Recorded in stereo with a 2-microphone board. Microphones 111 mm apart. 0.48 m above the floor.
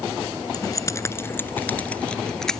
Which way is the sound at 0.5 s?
35° left (ahead or behind).